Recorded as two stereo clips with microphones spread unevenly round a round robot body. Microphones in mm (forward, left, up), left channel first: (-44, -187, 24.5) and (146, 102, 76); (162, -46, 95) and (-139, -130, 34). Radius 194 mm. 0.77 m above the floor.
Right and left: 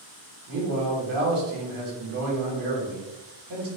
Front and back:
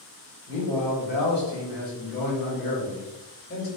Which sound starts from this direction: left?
A man speaking, at 0.5 s.